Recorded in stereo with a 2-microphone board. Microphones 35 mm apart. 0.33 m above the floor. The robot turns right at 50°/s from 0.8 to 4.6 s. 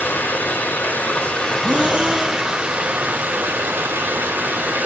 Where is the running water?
120° left, 3.5 m; by 4.9 s 50° right, 3.5 m.